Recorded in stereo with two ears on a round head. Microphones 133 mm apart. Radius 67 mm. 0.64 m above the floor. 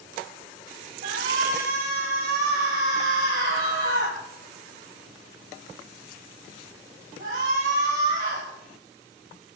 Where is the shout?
60° right (ahead or behind), 5.5 m.